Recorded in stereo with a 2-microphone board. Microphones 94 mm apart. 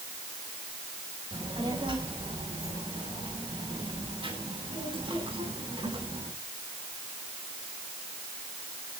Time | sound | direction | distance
1.3 | a child speaking | 60° right (ahead or behind) | 5 m